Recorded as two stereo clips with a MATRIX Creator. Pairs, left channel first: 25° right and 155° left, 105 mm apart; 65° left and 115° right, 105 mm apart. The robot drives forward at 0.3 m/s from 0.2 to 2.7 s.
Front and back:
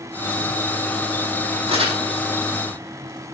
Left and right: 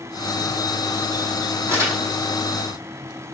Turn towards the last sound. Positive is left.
turn(degrees=-175)